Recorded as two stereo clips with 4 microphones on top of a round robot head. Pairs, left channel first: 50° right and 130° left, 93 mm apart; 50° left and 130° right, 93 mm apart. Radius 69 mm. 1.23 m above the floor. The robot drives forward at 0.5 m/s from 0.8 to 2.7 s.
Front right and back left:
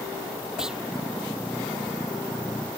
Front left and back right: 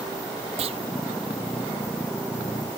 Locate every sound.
0.6 s a clunk: 150° right